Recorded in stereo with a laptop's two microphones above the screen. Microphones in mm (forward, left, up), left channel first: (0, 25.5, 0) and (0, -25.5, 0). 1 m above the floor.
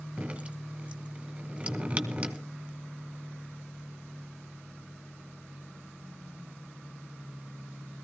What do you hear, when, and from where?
0.2 s dripping: 20° right (ahead or behind), 2 m